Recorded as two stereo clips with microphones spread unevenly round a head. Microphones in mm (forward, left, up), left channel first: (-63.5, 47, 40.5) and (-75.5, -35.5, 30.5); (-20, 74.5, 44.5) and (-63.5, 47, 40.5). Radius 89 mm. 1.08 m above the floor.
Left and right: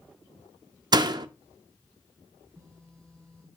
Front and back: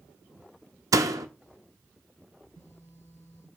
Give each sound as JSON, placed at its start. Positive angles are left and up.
{"t": 0.9, "sound": "a door slam", "azimuth_deg": -135, "distance_m": 0.8}
{"t": 2.4, "sound": "a phone buzzing", "azimuth_deg": -5, "distance_m": 1.2}